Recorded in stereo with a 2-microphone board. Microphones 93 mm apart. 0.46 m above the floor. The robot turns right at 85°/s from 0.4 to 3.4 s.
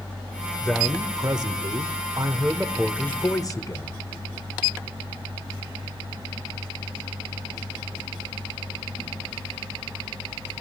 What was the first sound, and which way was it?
A man speaking, 175° left.